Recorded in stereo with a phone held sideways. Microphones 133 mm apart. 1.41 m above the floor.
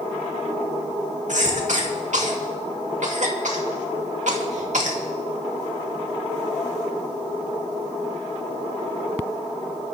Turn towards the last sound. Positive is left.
turn(degrees=-65)  # may be behind; listen again after turning